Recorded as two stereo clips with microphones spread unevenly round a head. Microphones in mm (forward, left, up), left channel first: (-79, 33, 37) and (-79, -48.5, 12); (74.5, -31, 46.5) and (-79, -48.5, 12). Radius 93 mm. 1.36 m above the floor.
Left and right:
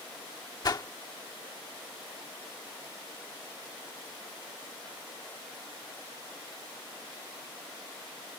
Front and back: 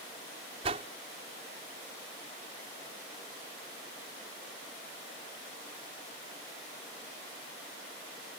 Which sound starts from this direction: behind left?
A whoosh, at 0.6 s.